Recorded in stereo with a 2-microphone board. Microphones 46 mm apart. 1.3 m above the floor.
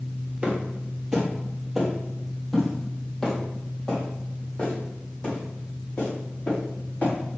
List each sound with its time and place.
0.4 s footsteps: 25° right (ahead or behind), 2 m; by 7.1 s 35° left (ahead or behind), 5.5 m